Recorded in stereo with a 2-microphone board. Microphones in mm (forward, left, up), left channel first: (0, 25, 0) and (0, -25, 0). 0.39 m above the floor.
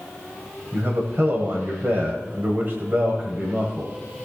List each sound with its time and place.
0.7 s a man speaking: 45° right (ahead or behind), 1.6 m